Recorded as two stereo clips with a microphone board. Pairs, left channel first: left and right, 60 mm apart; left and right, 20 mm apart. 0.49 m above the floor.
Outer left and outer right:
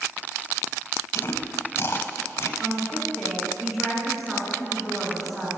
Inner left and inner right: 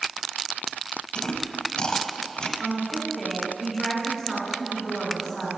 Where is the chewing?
45° left (ahead or behind), 0.6 m.